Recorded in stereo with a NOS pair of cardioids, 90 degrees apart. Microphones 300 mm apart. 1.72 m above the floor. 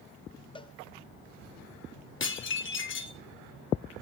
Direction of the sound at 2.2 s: 40° left.